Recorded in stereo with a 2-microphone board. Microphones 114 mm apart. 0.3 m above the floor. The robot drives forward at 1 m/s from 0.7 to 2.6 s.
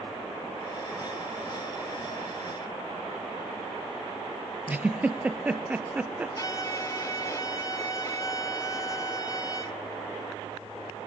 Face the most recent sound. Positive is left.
turn(degrees=30)  # may be behind; listen again after turning